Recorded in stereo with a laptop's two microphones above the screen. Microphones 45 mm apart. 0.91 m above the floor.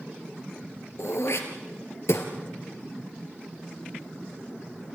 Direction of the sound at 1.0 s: 75° left (ahead or behind).